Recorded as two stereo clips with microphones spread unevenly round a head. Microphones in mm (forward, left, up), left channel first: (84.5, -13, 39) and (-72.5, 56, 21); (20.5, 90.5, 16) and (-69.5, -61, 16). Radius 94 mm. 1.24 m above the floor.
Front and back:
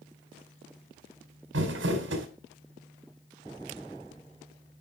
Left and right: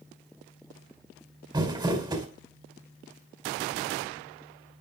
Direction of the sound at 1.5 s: 175° left.